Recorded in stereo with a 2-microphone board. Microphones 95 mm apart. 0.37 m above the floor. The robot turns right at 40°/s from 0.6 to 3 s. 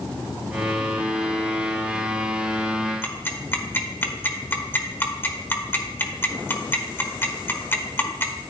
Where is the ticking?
25° left (ahead or behind), 1.2 m.